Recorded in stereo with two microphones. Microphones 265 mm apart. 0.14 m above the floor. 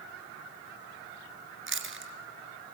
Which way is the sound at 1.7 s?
50° right (ahead or behind).